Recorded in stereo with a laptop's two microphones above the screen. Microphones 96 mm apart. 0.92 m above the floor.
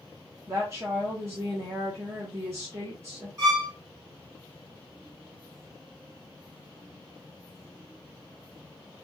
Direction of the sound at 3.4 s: 35° right (ahead or behind).